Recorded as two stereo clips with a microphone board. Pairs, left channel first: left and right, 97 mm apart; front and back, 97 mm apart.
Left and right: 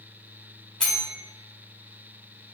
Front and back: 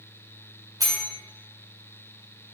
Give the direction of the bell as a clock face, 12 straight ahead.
6 o'clock.